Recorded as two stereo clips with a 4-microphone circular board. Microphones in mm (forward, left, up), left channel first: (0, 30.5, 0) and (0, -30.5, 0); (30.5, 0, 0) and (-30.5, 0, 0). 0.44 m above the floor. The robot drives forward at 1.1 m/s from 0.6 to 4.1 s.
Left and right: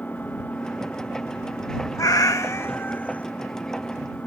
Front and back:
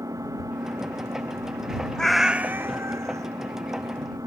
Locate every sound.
0.0 s an engine running: 155° left; by 4.3 s 160° left
2.0 s a cat meowing: 75° left; by 3.3 s 155° left